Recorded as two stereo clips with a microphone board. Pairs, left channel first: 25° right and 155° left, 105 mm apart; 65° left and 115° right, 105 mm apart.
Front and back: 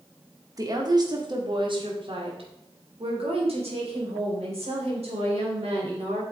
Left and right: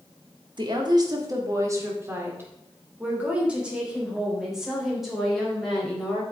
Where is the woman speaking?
150° right, 2 m; by 6.2 s 155° left, 4.5 m.